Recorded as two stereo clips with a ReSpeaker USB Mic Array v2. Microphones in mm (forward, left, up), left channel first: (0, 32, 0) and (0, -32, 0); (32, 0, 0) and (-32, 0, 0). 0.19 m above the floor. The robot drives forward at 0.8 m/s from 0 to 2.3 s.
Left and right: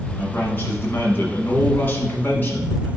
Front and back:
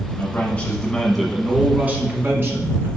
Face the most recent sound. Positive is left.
turn(degrees=140)